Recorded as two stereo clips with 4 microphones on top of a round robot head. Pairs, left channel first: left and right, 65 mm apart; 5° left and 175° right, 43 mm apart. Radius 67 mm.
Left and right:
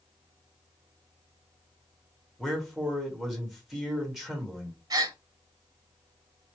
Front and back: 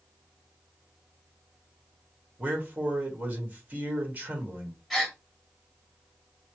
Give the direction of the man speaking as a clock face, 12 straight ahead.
6 o'clock.